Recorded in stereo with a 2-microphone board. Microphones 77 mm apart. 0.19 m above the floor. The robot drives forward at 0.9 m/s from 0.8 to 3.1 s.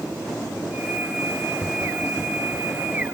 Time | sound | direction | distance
1.6 | tapping | 30° left (ahead or behind) | 6 m